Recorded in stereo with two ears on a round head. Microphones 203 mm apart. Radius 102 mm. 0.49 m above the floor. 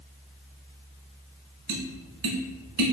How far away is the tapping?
About 0.9 m.